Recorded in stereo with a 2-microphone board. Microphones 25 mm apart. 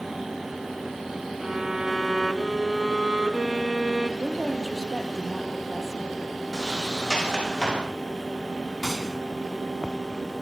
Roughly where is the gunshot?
Centre.